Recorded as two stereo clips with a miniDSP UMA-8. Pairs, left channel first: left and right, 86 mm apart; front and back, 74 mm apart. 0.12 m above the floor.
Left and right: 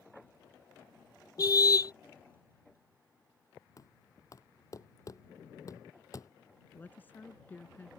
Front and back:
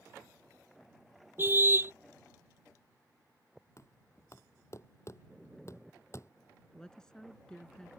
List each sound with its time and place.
1.4 s a car horn: 125° left
3.8 s knocking: 45° left
6.7 s a woman speaking: 65° left